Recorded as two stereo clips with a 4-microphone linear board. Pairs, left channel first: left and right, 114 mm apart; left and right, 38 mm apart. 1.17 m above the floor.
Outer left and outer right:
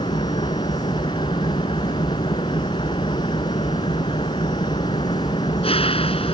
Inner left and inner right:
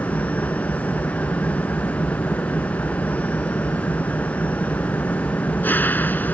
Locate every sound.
0.0 s an engine running: 55° left (ahead or behind)